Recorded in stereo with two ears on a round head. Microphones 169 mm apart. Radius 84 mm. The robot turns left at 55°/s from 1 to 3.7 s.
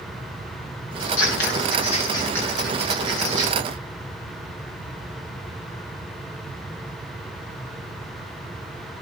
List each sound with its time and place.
1.0 s scissors: 80° left, 7 m; by 3.6 s 55° right (ahead or behind), 7 m